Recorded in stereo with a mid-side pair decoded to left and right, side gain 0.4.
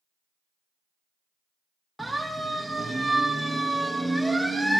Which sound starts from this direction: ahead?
A siren, at 2.0 s.